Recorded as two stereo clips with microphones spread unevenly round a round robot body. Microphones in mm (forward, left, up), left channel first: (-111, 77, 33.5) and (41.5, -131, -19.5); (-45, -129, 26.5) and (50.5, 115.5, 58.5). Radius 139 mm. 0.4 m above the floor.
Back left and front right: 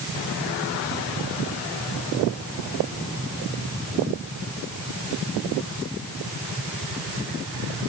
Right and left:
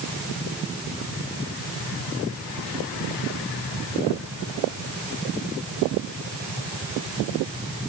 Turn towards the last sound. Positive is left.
No sound to turn to.